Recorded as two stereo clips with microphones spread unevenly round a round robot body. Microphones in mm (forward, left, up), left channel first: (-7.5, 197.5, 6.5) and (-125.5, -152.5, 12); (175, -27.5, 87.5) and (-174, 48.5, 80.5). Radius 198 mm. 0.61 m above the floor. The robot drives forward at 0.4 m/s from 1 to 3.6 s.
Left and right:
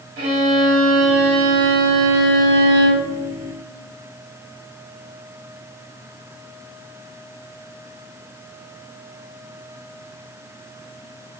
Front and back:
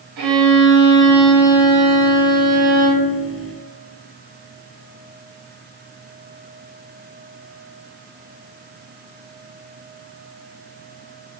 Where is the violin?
160° right, 1.8 m; by 3.1 s 165° right, 2.5 m.